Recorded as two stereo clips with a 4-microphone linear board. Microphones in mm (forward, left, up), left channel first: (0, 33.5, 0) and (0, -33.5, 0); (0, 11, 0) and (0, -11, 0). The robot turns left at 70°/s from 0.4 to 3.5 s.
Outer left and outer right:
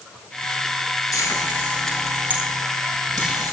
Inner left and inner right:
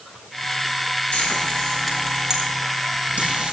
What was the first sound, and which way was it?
Frying, 60° left (ahead or behind).